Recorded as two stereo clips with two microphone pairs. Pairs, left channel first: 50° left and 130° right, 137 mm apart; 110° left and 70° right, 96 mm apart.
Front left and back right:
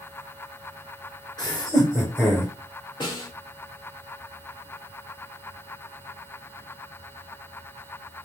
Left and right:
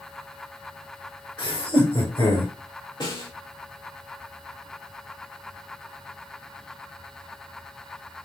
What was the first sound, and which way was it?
Laughter, 100° left.